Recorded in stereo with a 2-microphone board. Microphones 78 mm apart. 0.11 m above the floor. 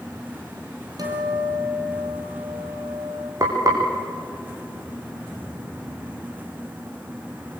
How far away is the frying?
About 5.5 m.